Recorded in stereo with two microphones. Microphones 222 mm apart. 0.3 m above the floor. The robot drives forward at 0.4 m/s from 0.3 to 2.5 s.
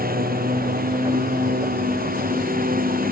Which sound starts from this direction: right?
A lawn mower, at 0.0 s.